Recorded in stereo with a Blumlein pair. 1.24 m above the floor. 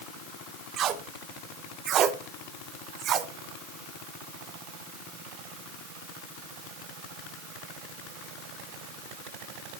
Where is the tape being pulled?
30° right, 0.7 m.